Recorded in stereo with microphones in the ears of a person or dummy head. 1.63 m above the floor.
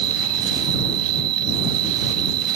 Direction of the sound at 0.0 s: 80° right.